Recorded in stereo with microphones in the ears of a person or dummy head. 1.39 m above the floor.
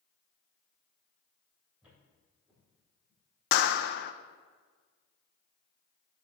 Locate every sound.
1.8 s footsteps: 10° right (ahead or behind), 3.5 m; by 3.8 s 10° left (ahead or behind), 4 m
3.5 s a clap: 55° left (ahead or behind), 0.6 m